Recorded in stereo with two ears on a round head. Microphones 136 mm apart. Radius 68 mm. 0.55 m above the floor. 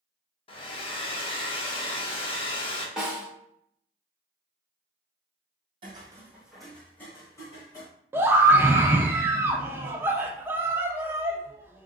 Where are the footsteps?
35° right (ahead or behind), 1.1 m; by 7.9 s 30° left (ahead or behind), 2.5 m.